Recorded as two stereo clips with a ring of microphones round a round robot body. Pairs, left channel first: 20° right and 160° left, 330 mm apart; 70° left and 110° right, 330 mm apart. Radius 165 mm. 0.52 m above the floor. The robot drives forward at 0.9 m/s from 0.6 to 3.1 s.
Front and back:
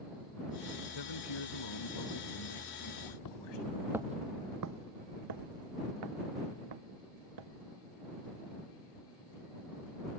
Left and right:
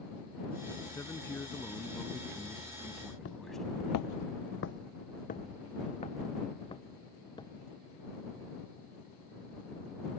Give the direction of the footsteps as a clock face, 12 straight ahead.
12 o'clock.